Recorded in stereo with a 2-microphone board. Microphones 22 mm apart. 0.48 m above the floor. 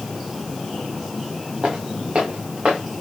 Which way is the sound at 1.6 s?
60° right (ahead or behind).